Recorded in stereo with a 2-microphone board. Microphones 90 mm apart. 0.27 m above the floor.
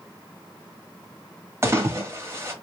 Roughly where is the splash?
Right.